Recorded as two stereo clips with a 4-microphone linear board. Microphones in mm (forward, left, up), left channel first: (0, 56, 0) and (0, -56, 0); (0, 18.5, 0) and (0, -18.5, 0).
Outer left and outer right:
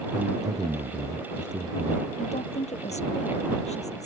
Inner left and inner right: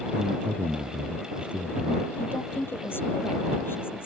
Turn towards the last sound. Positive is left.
turn(degrees=80)